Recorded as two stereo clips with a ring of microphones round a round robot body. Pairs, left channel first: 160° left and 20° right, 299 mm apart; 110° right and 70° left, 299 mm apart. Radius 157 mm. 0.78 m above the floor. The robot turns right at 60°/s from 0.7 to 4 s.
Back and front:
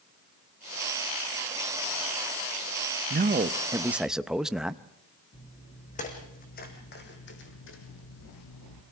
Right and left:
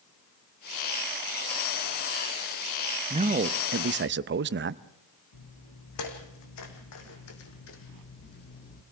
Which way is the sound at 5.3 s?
135° right.